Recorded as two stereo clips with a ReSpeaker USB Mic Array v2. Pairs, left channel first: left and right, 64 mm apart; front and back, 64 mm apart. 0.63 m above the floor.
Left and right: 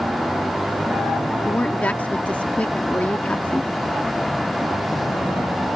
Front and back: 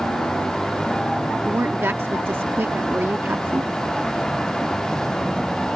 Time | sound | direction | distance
1.4 | a woman speaking | 145° left | ?